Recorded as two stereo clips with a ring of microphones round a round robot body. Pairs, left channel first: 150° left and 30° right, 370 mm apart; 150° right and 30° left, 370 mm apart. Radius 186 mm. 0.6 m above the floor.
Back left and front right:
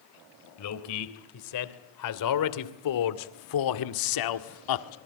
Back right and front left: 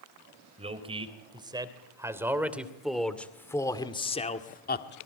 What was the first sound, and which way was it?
A man speaking, 105° left.